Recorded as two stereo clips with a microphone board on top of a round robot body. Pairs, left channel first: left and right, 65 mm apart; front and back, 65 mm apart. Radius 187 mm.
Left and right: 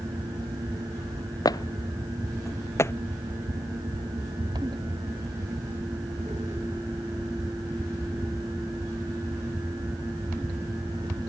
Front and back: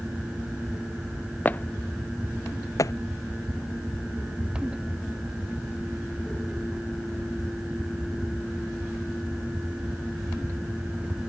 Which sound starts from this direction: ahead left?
Footsteps, at 1.4 s.